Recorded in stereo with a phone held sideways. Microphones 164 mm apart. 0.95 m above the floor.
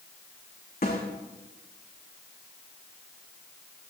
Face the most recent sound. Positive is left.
turn(degrees=85)